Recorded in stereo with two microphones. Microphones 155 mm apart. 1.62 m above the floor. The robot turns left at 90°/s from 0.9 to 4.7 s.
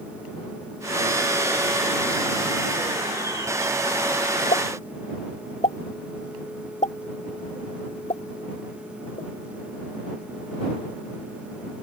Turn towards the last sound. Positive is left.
turn(degrees=50)  # may be behind; listen again after turning